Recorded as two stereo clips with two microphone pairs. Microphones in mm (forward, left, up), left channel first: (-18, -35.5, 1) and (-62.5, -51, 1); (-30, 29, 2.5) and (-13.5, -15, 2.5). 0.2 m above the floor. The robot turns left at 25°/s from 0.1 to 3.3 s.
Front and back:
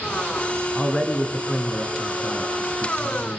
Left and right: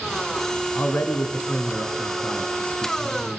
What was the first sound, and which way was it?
A man speaking, 100° left.